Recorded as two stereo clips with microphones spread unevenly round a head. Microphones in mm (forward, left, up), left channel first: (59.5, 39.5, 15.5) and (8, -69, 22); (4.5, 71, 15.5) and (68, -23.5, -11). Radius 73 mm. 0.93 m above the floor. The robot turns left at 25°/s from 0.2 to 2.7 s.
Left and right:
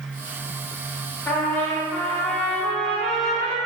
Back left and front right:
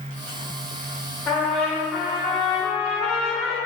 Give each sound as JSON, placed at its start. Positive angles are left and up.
{"t": 1.3, "sound": "a trumpet", "azimuth_deg": 25, "distance_m": 0.7}